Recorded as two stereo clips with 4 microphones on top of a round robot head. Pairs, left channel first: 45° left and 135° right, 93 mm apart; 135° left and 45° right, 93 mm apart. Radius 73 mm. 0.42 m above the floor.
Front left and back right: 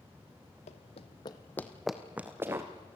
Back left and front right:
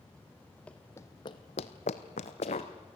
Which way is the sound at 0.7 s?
60° left.